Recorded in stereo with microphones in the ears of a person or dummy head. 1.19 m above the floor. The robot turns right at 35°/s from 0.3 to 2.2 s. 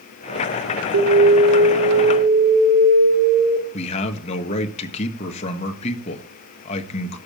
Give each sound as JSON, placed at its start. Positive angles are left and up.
{"t": 0.9, "sound": "an alarm", "azimuth_deg": -70, "distance_m": 3.0}
{"t": 3.7, "sound": "a man speaking", "side_deg": 35, "distance_m": 1.6}